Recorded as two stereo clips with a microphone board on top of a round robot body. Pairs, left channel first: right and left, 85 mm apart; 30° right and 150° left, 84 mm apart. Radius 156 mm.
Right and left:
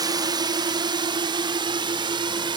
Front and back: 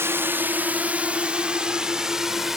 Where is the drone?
95° left; by 2.6 s 65° left.